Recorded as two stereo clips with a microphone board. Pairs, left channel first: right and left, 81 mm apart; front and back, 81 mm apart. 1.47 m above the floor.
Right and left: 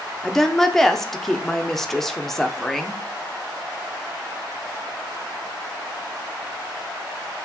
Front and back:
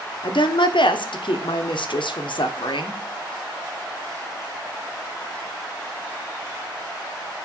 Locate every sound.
0.2 s a woman speaking: 5° right, 0.8 m